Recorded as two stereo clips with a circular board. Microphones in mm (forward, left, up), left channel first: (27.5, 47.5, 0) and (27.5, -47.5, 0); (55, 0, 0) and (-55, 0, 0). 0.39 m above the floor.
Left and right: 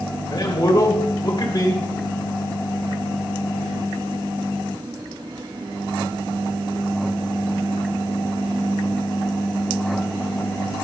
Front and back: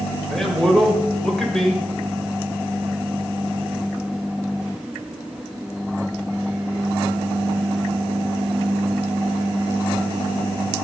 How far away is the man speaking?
About 1.7 m.